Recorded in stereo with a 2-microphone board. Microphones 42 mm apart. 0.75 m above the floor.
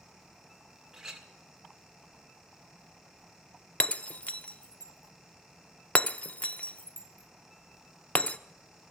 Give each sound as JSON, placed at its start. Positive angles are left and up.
{"t": 0.9, "sound": "a clink", "side_deg": -15, "distance_m": 1.7}
{"t": 3.8, "sound": "breaking glass", "side_deg": 35, "distance_m": 0.5}